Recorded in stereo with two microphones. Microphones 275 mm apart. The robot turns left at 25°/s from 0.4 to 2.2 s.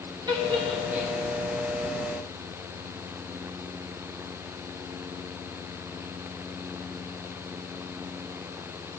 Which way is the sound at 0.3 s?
15° right (ahead or behind).